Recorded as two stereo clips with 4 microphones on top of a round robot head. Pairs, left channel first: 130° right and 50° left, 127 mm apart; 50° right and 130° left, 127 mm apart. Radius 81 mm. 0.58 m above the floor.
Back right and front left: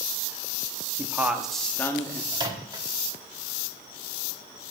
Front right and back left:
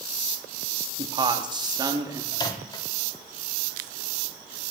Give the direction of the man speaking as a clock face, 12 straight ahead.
8 o'clock.